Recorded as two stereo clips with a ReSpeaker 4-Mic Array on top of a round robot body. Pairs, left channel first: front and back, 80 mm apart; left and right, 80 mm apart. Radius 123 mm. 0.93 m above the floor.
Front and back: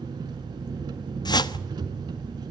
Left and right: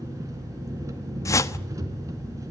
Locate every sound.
0.0 s an engine running: 140° right, 3 m
1.2 s a whoosh: 35° left, 1.1 m